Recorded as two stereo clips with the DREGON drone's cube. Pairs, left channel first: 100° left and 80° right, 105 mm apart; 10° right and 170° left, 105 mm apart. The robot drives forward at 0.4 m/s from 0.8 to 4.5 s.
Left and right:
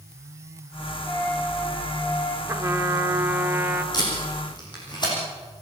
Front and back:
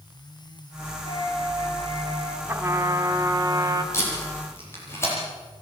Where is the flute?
40° left, 3.5 m; by 2.4 s 45° left, 3 m.